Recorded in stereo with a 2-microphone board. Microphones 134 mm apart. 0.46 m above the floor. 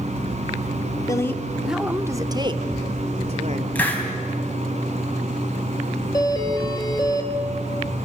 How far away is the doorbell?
About 2 m.